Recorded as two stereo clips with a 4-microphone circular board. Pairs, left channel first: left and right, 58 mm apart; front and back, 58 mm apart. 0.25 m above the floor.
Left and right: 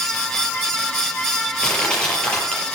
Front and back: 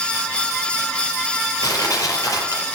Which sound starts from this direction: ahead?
Crushing, at 1.6 s.